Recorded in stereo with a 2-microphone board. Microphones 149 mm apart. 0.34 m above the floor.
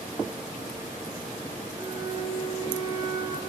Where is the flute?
30° right (ahead or behind), 5.5 m.